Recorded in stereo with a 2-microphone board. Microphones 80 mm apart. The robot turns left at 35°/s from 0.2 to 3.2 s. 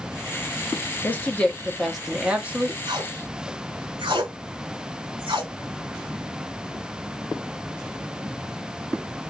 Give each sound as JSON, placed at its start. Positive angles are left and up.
{"t": 1.0, "sound": "a woman speaking", "azimuth_deg": 30, "distance_m": 1.0}
{"t": 2.9, "sound": "tape being pulled", "side_deg": -70, "distance_m": 1.5}